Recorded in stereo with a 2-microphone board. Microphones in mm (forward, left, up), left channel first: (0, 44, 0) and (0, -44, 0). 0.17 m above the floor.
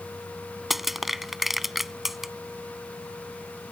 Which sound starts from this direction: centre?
Crushing, at 0.7 s.